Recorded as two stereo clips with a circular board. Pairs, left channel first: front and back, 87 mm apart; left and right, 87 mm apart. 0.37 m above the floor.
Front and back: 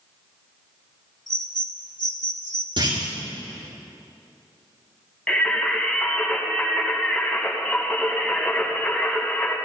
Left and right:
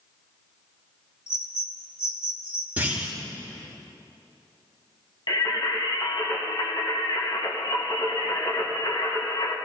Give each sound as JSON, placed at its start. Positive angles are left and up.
{"t": 1.3, "sound": "a bird", "azimuth_deg": 35, "distance_m": 1.2}
{"t": 2.8, "sound": "a clunk", "azimuth_deg": -160, "distance_m": 5.5}
{"t": 5.3, "sound": "singing", "azimuth_deg": 80, "distance_m": 2.5}